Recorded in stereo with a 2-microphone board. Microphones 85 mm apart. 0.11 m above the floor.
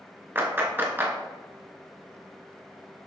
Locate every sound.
0.3 s a clap: 25° right (ahead or behind), 0.9 m